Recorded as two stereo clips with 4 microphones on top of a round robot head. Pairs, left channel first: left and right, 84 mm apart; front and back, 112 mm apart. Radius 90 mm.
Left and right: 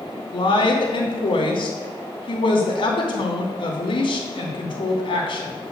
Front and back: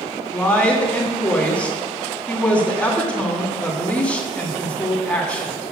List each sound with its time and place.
0.3 s a woman speaking: 80° left, 2.5 m